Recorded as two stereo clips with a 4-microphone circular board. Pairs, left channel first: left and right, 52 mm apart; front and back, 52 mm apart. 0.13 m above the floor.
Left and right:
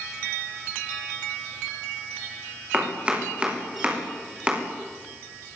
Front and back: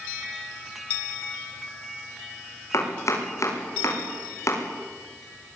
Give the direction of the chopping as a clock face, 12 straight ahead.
1 o'clock.